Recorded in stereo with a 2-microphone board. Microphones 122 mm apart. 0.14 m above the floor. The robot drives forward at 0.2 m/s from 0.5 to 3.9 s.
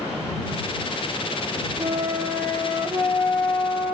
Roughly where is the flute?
Right.